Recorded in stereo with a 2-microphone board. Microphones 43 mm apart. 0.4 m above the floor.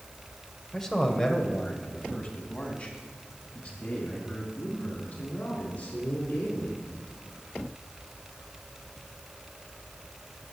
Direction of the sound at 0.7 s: 10° left (ahead or behind).